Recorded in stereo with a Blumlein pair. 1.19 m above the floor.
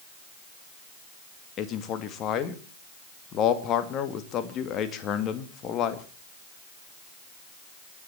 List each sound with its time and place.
1.6 s a man speaking: 30° left, 2 m